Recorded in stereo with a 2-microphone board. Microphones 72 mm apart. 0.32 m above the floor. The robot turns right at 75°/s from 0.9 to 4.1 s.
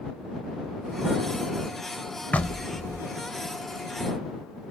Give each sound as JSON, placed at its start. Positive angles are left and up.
{"t": 2.3, "sound": "knocking", "azimuth_deg": 140}